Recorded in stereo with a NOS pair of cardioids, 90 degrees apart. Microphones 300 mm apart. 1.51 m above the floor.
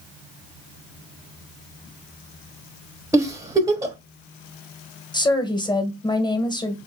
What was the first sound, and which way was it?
A giggle, 10° right.